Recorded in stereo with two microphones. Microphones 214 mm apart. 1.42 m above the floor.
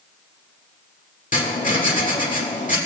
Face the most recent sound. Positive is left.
turn(degrees=40)  # may be behind; listen again after turning